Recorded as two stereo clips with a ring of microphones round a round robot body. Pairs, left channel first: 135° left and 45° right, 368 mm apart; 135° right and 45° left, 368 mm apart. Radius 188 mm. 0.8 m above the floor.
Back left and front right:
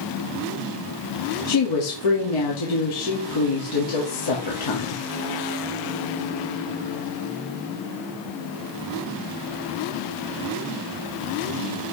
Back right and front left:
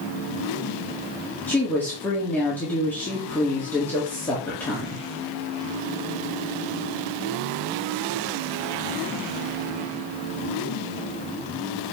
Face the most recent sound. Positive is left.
turn(degrees=140)